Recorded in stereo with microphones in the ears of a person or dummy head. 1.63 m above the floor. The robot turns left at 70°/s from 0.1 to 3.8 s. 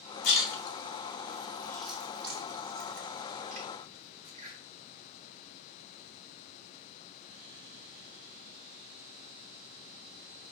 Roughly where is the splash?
Left.